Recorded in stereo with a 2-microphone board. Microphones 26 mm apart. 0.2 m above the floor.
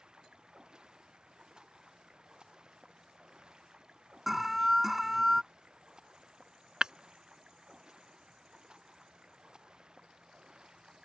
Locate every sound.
0.0 s running water: 30° right (ahead or behind)
4.3 s an alarm: 10° right (ahead or behind)
6.8 s breaking glass: 30° right (ahead or behind)